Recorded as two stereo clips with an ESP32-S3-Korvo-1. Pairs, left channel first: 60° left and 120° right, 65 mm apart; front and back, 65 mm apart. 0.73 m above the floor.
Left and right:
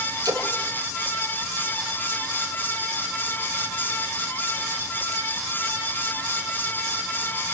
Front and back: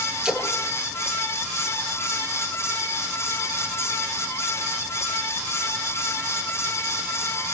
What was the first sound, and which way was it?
A splash, 100° right.